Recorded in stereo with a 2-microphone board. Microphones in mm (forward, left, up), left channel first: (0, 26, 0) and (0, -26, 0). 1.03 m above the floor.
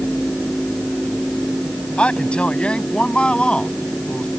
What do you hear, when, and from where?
2.0 s a man speaking: 25° left (ahead or behind); by 4.3 s 20° left (ahead or behind)